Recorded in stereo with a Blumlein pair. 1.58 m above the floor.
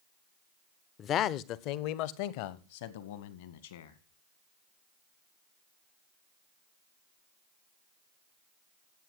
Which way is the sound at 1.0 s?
25° left.